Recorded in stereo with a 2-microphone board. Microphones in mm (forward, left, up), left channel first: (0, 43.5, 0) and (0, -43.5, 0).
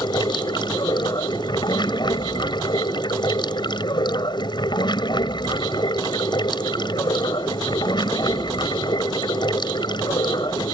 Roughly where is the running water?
Left.